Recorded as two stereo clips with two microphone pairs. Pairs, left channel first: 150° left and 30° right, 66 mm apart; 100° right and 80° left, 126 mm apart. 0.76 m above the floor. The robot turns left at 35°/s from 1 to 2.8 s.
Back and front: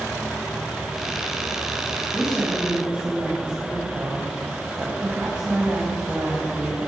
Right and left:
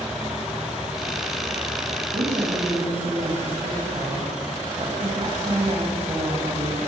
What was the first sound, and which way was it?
A woman speaking, 55° left.